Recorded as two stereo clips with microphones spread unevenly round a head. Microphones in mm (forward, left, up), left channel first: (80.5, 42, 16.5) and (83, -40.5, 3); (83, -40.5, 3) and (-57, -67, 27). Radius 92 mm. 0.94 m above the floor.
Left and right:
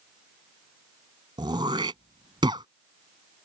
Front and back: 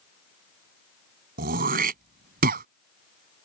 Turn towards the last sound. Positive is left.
turn(degrees=-155)